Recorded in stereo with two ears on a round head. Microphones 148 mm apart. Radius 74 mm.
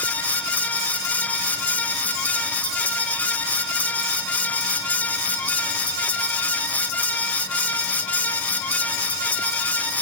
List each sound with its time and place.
Only background noise.